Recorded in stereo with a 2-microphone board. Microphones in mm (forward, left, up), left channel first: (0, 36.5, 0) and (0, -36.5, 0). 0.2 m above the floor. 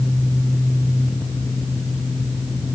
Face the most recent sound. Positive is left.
No sound to turn to.